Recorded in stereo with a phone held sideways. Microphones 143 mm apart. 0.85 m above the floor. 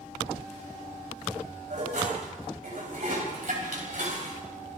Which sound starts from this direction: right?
Dishes clattering, at 1.7 s.